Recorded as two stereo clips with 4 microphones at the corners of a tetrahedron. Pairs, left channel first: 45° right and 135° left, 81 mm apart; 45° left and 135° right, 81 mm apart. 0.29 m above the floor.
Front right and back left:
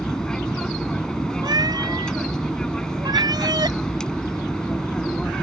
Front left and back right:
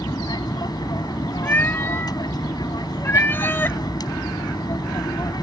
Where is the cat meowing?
110° left.